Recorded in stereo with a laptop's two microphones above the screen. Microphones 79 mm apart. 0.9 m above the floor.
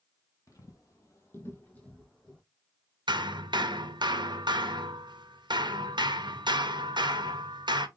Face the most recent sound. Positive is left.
turn(degrees=-70)  # may be behind; listen again after turning